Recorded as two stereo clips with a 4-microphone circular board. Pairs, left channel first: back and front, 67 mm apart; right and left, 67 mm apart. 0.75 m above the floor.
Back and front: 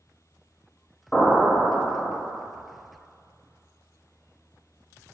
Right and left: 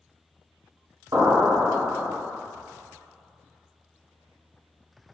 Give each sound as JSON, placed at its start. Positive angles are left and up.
{"t": 1.1, "sound": "an explosion", "azimuth_deg": 115, "distance_m": 0.9}